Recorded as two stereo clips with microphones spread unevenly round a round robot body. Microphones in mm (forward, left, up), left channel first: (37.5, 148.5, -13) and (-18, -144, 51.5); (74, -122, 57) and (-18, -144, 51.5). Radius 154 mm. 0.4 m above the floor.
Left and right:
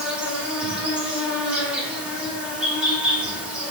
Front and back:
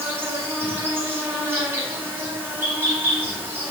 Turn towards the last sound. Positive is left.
turn(degrees=155)